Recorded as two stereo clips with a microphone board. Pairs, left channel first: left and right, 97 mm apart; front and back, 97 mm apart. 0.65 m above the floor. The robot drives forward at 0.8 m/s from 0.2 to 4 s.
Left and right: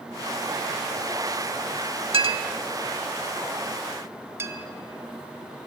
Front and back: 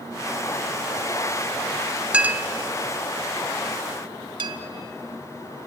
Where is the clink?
100° right, 0.9 m; by 4.6 s 150° right, 1.9 m.